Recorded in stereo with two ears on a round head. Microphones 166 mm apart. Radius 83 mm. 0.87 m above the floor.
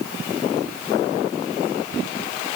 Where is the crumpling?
I don't hear crumpling.